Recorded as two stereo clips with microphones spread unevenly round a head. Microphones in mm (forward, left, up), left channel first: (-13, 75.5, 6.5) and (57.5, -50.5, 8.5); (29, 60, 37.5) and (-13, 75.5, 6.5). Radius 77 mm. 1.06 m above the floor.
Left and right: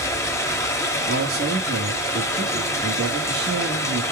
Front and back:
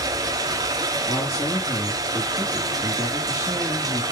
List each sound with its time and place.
0.0 s running water: 175° right, 1.1 m
1.1 s a man speaking: 75° right, 2.5 m